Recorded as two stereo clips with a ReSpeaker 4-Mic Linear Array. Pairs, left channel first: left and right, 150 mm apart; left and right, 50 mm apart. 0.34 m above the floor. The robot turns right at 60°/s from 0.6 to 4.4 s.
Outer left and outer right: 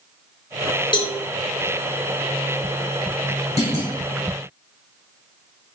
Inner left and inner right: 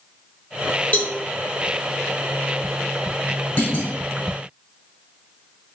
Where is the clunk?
45° left (ahead or behind), 1.3 m; by 4.0 s 50° left (ahead or behind), 1.3 m.